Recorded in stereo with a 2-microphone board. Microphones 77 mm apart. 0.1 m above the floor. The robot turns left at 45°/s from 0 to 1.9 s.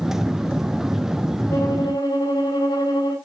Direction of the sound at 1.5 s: 30° left (ahead or behind).